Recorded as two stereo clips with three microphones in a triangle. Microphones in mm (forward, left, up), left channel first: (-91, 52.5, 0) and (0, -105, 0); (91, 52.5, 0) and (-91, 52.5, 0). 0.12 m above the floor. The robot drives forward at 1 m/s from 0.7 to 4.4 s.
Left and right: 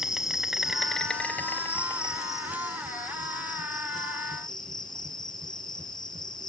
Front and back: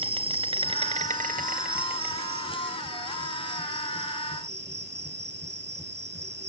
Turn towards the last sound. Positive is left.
turn(degrees=-175)